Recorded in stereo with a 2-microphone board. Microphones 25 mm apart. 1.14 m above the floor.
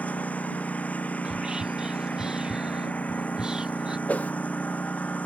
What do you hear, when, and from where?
0.0 s a lawn mower: 65° left (ahead or behind)
1.2 s whispering: 35° right (ahead or behind)
4.1 s a whoosh: 80° left